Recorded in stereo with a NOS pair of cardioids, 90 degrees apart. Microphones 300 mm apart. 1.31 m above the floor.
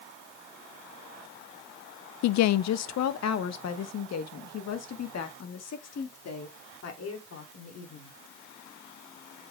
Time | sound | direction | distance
2.2 | a woman speaking | 70° left | 0.5 m